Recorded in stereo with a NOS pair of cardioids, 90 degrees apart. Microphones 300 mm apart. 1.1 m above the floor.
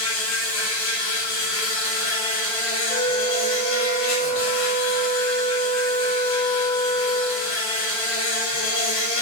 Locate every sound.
0.0 s an insect: 65° left, 3.5 m
2.9 s a flute: 20° left, 1.8 m